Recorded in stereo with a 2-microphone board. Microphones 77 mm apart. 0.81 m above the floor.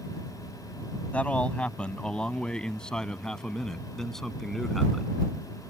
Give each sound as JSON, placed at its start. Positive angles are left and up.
{"t": 1.1, "sound": "a man speaking", "side_deg": 20}